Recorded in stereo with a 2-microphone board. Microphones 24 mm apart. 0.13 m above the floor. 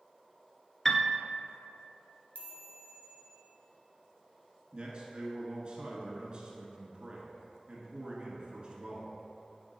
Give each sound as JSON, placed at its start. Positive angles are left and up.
{"t": 0.8, "sound": "a piano", "side_deg": 15, "distance_m": 0.5}
{"t": 2.4, "sound": "a chime", "side_deg": 50, "distance_m": 1.2}
{"t": 4.7, "sound": "a man speaking", "side_deg": -35, "distance_m": 1.3}